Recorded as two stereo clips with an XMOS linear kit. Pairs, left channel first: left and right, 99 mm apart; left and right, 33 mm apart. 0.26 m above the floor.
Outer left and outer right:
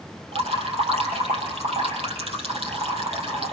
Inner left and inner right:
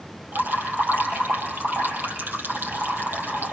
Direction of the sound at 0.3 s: 80° right.